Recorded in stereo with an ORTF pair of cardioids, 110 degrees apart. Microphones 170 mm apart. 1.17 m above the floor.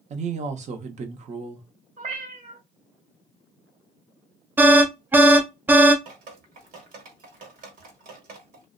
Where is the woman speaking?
45° right, 0.8 m.